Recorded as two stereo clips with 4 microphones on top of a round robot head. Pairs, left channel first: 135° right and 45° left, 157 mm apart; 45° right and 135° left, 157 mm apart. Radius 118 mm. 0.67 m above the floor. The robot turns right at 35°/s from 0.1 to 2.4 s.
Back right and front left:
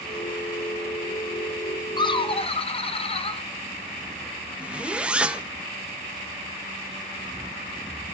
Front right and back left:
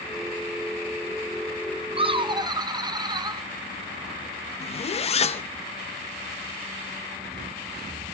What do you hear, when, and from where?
2.0 s laughter: 175° left, 1.0 m; by 3.4 s 170° right, 1.0 m
4.6 s a zipper: 35° right, 0.7 m